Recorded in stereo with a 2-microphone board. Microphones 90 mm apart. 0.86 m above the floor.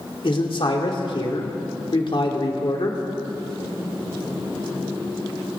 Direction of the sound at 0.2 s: 65° left (ahead or behind).